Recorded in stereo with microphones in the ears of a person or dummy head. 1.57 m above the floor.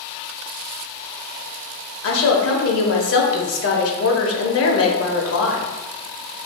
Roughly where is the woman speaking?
Left.